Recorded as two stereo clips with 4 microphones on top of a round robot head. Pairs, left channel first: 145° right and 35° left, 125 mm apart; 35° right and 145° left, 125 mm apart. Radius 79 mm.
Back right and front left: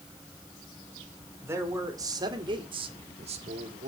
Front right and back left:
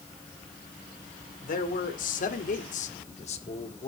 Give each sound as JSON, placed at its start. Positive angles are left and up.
{"t": 1.4, "sound": "a man speaking", "azimuth_deg": -40, "distance_m": 2.5}